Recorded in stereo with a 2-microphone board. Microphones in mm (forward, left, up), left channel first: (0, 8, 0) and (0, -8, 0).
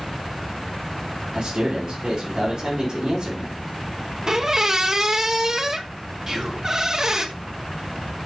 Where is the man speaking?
35° right (ahead or behind), 4 m.